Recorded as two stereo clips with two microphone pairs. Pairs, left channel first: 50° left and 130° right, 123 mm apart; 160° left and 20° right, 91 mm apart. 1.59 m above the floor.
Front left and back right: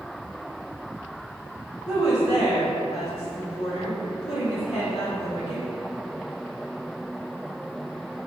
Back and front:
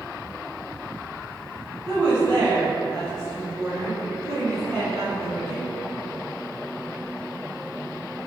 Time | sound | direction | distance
1.9 | a woman speaking | 30° left | 1.6 m